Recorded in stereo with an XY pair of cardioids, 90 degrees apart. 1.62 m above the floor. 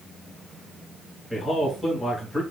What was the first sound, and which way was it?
A man speaking, 5° left.